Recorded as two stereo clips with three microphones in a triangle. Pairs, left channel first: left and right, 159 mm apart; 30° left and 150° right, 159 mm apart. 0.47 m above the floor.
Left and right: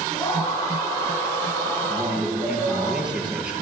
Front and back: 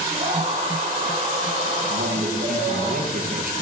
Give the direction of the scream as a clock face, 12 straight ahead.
7 o'clock.